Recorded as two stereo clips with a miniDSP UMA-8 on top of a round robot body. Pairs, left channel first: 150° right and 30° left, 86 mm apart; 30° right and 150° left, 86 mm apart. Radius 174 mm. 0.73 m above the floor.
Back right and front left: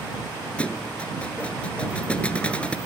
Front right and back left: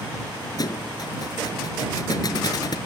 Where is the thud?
75° right.